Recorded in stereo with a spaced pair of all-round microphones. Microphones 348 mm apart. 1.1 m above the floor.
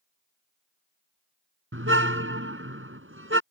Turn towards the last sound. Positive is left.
turn(degrees=-35)  # may be behind; listen again after turning